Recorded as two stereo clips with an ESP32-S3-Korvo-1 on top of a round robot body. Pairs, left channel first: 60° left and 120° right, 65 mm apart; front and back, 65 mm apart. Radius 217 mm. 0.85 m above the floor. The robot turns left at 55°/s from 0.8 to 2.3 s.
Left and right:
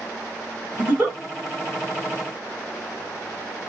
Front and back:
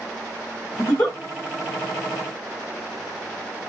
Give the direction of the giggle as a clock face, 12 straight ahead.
2 o'clock.